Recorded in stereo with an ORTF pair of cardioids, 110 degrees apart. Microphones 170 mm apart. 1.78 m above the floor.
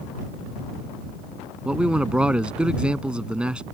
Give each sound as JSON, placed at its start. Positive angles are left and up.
{"t": 1.6, "sound": "a man speaking", "azimuth_deg": -5}